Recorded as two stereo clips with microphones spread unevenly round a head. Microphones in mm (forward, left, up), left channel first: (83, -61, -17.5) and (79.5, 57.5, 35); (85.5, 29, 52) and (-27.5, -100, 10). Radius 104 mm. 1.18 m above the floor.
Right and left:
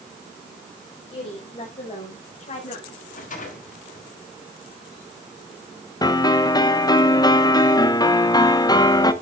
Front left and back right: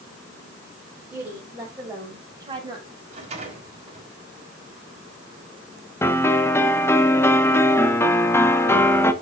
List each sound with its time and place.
1.1 s a woman speaking: 50° right, 5.5 m; by 3.0 s 70° right, 6.5 m
3.1 s a rattle: 80° right, 5.5 m
6.0 s a piano: 25° right, 1.3 m